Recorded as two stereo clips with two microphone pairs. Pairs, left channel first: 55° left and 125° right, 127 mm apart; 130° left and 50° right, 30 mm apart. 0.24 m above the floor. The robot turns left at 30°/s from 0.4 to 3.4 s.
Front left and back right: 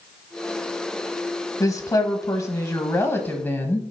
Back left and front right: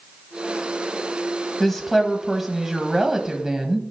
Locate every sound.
1.6 s a woman speaking: 55° left, 1.0 m; by 3.8 s straight ahead, 1.0 m